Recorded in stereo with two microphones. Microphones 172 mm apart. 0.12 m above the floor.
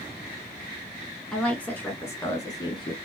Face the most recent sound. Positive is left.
turn(degrees=25)  # may be behind; listen again after turning